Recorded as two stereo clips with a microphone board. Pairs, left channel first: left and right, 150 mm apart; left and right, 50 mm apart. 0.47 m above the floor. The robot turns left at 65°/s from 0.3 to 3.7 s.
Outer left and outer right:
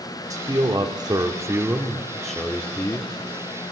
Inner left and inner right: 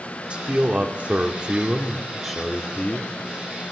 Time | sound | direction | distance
0.3 | a man speaking | 20° right (ahead or behind) | 0.8 m